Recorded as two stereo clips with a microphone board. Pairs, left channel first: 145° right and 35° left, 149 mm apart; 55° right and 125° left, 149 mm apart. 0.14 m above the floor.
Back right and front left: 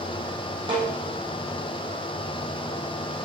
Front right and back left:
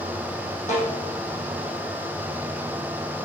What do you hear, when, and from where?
0.7 s a snare drum: 20° right, 5.5 m